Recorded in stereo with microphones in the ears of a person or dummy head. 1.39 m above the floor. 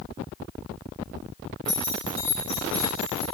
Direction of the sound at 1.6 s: Centre (ahead or behind).